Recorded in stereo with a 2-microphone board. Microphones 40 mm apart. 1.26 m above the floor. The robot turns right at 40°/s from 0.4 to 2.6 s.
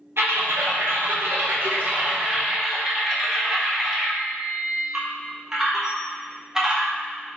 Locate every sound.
0.2 s typing on a keyboard: 100° right, 0.8 m; by 6.9 s 15° right, 0.8 m